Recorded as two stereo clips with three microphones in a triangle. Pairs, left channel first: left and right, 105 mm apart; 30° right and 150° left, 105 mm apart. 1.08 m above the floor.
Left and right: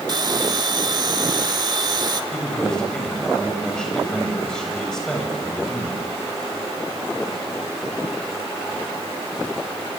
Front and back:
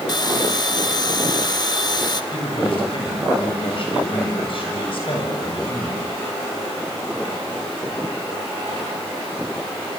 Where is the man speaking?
5° left, 7 m.